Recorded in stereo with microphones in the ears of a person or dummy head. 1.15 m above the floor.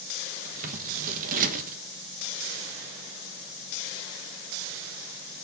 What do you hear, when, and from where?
0.5 s scissors: 50° right (ahead or behind), 1.3 m